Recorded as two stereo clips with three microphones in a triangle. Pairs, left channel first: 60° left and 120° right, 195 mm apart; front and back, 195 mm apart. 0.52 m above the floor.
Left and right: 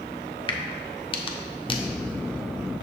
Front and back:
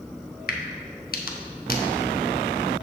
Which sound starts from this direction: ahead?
A crack, at 0.5 s.